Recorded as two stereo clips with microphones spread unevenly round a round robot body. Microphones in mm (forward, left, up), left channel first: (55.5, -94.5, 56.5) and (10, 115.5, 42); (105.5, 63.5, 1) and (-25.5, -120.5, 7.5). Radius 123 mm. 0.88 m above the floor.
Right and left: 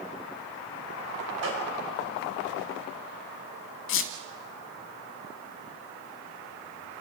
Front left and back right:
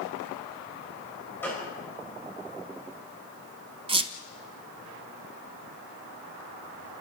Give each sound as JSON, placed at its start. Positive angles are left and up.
{"t": 1.4, "sound": "a gunshot", "azimuth_deg": 135, "distance_m": 5.5}
{"t": 3.9, "sound": "a squeak", "azimuth_deg": -65, "distance_m": 1.2}